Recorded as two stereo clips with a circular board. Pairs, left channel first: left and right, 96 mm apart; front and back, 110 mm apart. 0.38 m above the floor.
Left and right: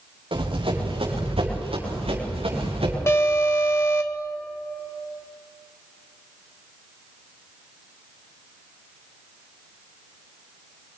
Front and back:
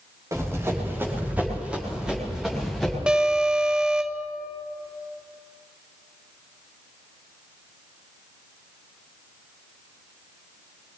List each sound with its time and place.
0.3 s running footsteps: 115° right, 6.5 m; by 3.0 s 90° right, 7.5 m
3.1 s an alarm: 105° left, 1.1 m